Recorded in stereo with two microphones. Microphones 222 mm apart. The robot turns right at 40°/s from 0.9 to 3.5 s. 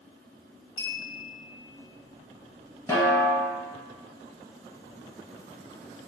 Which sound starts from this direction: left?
A clink, at 0.8 s.